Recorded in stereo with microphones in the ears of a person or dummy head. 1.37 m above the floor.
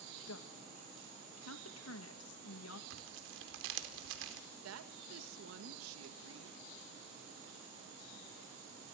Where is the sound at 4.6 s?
85° right, 1.6 m.